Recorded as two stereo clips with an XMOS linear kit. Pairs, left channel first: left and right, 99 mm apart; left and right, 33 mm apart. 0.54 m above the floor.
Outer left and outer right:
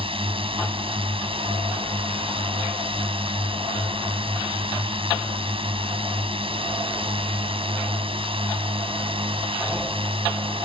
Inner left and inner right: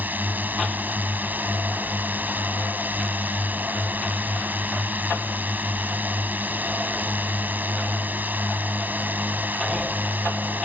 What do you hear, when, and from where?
0.0 s a drone: 70° right (ahead or behind)